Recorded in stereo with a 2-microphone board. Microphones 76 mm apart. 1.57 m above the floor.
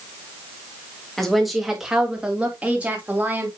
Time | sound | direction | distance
1.2 | a woman speaking | 5° left (ahead or behind) | 2.5 m